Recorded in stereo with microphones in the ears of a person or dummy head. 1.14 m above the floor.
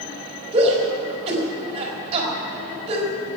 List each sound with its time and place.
0.5 s a shout: 35° right (ahead or behind), 4.5 m